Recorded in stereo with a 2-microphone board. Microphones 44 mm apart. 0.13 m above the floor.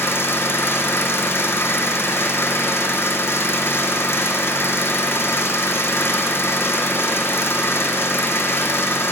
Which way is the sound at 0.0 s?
60° left (ahead or behind).